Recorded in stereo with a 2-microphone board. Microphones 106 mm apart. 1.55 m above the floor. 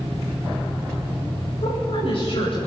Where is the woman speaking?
60° left (ahead or behind), 10 m.